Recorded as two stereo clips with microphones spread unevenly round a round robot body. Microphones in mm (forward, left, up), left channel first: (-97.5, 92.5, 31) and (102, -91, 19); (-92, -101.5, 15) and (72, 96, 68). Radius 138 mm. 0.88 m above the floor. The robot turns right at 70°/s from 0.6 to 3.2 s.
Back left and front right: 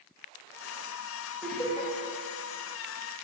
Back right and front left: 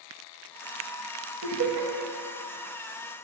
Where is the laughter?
45° left, 1.8 m; by 1.9 s 80° left, 1.8 m.